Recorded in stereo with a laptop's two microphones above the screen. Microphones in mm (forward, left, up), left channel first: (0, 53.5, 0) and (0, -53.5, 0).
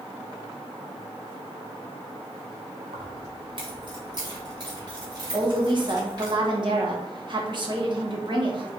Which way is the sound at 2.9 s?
50° right (ahead or behind).